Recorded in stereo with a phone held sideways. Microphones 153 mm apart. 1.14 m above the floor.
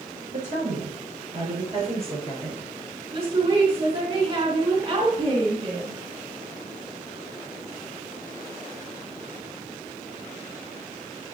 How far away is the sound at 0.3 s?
About 5.5 m.